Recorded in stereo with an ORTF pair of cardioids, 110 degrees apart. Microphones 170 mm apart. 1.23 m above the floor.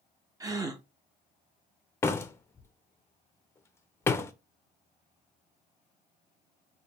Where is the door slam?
15° left, 0.6 m.